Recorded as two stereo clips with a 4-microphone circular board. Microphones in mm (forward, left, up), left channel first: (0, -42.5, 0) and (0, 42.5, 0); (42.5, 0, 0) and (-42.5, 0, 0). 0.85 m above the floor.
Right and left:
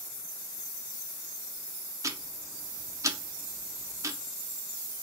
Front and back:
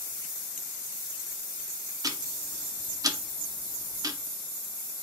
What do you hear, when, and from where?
2.0 s ticking: 140° left, 0.5 m